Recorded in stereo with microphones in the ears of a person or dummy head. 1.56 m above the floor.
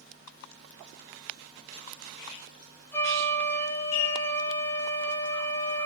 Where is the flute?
10° left (ahead or behind), 0.8 m.